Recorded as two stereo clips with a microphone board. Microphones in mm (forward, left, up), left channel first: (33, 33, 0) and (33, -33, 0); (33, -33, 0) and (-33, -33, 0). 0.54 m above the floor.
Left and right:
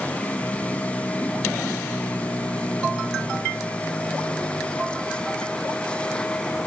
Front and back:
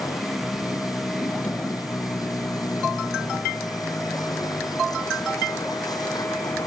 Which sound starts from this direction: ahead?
A vehicle, at 0.0 s.